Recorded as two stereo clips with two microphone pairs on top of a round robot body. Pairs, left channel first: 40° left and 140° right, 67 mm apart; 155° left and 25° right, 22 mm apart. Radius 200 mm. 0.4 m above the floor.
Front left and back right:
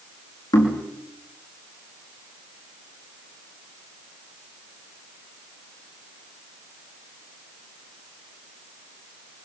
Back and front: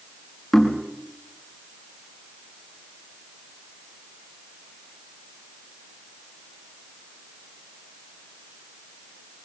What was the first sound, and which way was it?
Knocking, 70° left.